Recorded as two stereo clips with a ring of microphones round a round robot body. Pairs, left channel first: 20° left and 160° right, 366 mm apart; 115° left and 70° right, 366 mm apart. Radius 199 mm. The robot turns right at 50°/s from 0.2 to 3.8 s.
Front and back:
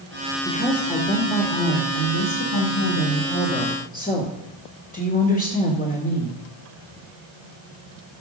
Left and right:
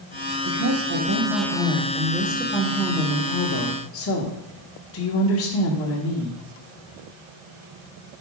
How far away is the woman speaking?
About 1.8 m.